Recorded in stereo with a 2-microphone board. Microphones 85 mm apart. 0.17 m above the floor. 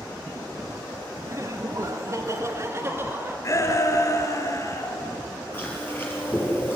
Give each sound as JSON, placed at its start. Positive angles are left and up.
{"t": 1.3, "sound": "laughter", "side_deg": -40, "distance_m": 2.0}
{"t": 3.4, "sound": "a shout", "side_deg": 40, "distance_m": 3.0}
{"t": 5.5, "sound": "chewing", "side_deg": 25, "distance_m": 5.0}